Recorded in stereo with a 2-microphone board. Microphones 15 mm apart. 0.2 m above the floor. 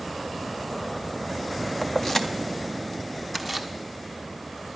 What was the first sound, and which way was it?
Keys jangling, 30° left (ahead or behind).